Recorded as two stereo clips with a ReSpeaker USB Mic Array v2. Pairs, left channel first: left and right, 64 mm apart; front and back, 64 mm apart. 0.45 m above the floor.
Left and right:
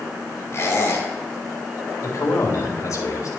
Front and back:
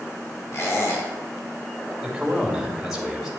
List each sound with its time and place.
0.5 s a squeak: 40° left, 2.5 m
2.0 s a man speaking: 100° left, 2.5 m